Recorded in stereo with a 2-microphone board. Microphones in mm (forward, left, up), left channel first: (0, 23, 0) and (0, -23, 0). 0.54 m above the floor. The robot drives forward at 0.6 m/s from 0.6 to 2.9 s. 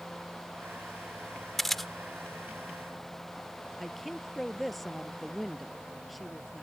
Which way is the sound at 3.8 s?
Centre (ahead or behind).